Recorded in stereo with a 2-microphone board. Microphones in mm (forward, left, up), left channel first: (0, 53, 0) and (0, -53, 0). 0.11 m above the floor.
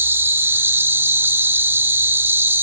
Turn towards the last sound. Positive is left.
turn(degrees=-25)  # may be behind; listen again after turning